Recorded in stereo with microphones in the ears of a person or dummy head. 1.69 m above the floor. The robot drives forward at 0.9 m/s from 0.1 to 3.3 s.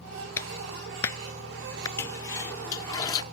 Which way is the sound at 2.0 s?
15° left (ahead or behind).